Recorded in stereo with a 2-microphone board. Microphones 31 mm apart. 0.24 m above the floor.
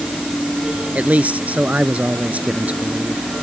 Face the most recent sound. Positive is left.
turn(degrees=-50)  # may be behind; listen again after turning